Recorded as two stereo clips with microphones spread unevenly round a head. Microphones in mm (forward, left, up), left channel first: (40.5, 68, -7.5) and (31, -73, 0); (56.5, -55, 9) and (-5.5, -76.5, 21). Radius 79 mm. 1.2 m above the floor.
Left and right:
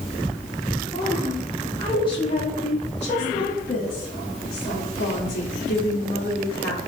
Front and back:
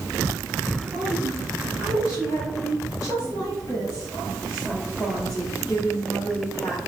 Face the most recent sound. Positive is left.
turn(degrees=95)